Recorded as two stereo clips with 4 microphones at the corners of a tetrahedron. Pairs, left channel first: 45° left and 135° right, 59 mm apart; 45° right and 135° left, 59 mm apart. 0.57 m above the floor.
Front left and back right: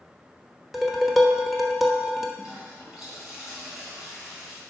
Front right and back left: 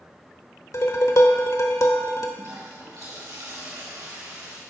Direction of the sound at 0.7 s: 45° right.